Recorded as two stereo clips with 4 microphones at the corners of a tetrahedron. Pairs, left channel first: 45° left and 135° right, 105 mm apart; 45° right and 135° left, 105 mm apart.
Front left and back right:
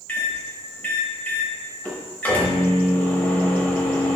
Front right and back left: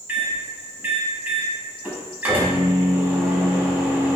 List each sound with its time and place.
0.1 s a microwave: 95° left, 0.7 m